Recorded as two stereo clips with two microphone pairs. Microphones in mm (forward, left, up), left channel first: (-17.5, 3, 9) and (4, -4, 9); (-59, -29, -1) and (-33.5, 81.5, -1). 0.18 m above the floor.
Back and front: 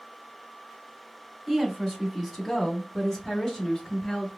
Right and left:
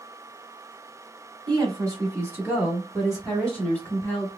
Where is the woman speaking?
70° left, 1.4 m; by 4.3 s 155° right, 1.4 m.